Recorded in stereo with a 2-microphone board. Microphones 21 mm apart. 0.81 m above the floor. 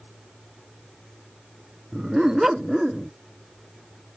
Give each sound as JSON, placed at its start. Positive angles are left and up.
{"t": 1.9, "sound": "a dog barking", "side_deg": -30}